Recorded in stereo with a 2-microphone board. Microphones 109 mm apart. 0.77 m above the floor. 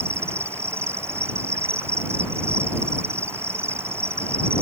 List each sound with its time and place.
0.0 s an insect: 25° right (ahead or behind)